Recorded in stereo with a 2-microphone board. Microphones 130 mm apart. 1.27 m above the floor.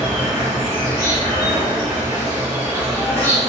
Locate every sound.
0.0 s an insect: 30° right (ahead or behind), 1.9 m